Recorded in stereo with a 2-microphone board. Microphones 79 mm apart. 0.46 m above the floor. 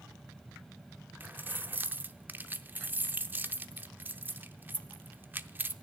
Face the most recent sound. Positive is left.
turn(degrees=-25)  # may be behind; listen again after turning